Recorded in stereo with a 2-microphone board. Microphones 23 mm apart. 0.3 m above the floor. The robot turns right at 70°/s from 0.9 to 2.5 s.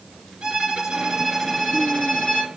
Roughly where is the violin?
Ahead right.